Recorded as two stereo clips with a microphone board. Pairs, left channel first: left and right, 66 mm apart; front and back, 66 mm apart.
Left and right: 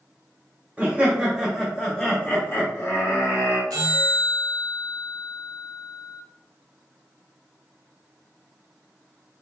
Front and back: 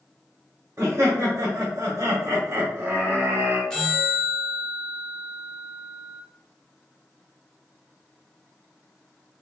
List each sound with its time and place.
0.8 s laughter: 155° right, 0.9 m; by 3.6 s 120° left, 1.3 m
3.7 s a bell: 80° right, 1.0 m